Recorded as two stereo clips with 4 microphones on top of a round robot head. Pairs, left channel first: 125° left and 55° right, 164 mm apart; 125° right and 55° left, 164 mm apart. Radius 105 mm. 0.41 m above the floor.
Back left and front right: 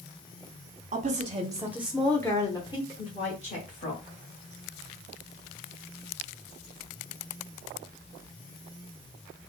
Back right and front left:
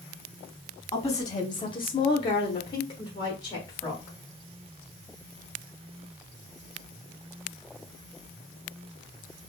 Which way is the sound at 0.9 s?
65° right.